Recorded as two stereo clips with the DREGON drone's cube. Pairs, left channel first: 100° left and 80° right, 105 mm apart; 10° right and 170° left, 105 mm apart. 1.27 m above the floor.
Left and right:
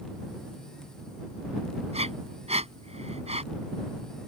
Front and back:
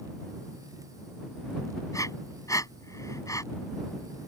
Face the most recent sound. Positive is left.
turn(degrees=-70)